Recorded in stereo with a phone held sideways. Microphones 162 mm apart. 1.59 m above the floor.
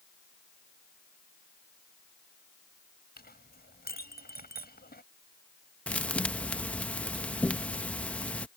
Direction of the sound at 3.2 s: 80° left.